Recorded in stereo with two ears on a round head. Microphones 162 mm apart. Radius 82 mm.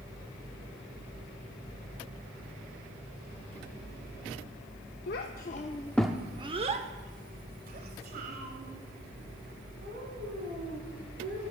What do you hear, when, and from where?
5.1 s a child speaking: 65° left (ahead or behind), 0.7 m; by 11.4 s 65° right (ahead or behind), 4 m